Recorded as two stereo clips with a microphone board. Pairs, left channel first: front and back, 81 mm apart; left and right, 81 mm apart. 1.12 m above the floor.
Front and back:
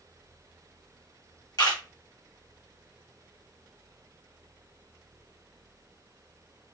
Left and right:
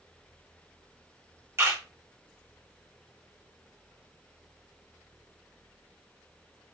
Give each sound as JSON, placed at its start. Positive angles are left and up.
{"t": 1.6, "sound": "a camera shutter", "azimuth_deg": -35, "distance_m": 1.1}